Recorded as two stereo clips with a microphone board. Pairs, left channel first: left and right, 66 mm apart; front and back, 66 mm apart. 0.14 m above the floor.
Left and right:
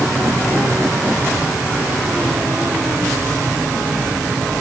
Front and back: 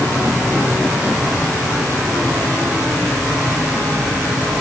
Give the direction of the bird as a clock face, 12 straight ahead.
I don't hear a bird.